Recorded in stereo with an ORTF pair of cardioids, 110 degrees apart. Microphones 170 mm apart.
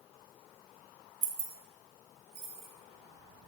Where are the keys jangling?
45° right, 0.9 m; by 2.7 s 65° right, 2.5 m.